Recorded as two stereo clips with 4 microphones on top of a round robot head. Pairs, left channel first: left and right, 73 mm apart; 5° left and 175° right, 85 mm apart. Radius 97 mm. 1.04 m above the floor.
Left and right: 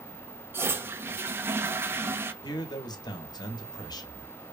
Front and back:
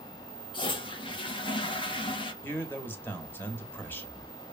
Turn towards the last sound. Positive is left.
turn(degrees=70)